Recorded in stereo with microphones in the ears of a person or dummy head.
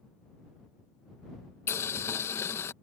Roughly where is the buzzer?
No buzzer in this recording.